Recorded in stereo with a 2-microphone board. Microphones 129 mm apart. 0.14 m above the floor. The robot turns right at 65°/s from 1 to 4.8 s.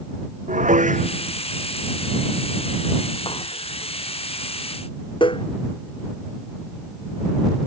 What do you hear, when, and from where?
0.5 s dishes clattering: 70° right (ahead or behind); by 5.5 s 40° left (ahead or behind)